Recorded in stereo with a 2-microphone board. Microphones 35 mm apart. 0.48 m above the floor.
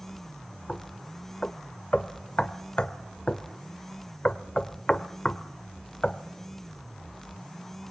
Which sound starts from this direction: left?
Knocking, at 0.7 s.